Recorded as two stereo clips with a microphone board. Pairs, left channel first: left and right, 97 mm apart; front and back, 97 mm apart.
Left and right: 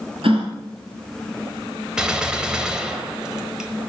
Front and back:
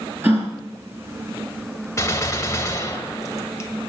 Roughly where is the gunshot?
Ahead.